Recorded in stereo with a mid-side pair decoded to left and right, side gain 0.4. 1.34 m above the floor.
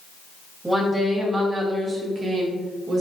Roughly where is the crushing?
No crushing in this recording.